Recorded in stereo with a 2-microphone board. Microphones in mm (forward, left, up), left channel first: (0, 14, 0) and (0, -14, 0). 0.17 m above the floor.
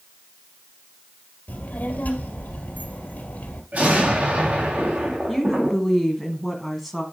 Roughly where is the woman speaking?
Centre.